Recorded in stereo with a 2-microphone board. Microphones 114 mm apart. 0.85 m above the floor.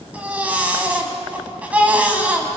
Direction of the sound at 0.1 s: 10° right (ahead or behind).